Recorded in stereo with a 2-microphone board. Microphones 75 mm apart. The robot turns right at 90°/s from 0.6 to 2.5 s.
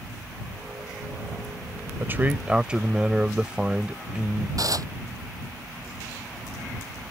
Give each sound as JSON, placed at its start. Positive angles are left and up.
{"t": 2.0, "sound": "a man speaking", "azimuth_deg": -70}
{"t": 4.6, "sound": "dishes clattering", "side_deg": -55}